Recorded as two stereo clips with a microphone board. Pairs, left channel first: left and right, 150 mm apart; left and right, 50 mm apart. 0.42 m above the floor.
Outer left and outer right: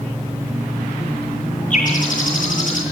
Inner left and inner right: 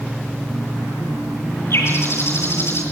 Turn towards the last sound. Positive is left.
turn(degrees=60)  # may be behind; listen again after turning